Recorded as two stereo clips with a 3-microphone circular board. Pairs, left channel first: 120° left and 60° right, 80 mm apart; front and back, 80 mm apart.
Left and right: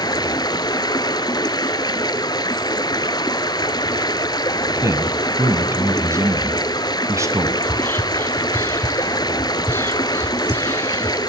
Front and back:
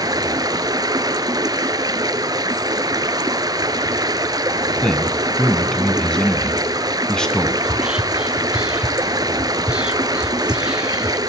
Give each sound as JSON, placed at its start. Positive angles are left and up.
{"t": 0.0, "sound": "running water", "azimuth_deg": 145, "distance_m": 1.0}
{"t": 4.8, "sound": "a man speaking", "azimuth_deg": -80, "distance_m": 1.8}
{"t": 7.6, "sound": "whispering", "azimuth_deg": 120, "distance_m": 1.1}